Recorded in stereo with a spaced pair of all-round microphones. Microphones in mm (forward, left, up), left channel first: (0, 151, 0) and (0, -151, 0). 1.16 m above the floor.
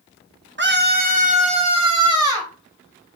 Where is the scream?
40° right (ahead or behind), 0.8 m; by 2.5 s 10° right (ahead or behind), 1.6 m.